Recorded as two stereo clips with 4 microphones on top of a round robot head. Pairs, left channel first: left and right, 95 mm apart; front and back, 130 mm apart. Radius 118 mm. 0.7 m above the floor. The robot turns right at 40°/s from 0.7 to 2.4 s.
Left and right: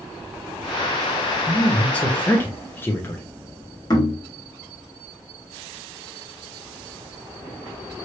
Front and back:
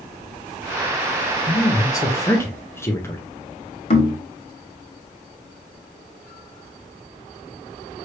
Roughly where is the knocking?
Ahead left.